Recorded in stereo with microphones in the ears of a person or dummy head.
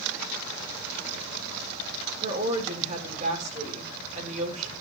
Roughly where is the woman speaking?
Right.